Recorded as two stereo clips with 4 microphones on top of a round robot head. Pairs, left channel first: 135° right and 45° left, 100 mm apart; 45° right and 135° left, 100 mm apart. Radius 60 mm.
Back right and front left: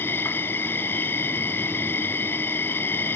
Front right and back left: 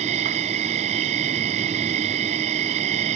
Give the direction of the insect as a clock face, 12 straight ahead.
7 o'clock.